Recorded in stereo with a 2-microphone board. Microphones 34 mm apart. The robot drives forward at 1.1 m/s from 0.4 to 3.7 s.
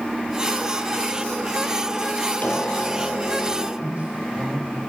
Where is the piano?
60° left (ahead or behind), 5 m; by 3.7 s 75° left (ahead or behind), 4.5 m.